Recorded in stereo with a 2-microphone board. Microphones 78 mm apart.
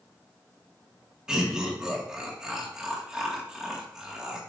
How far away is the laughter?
About 1.8 m.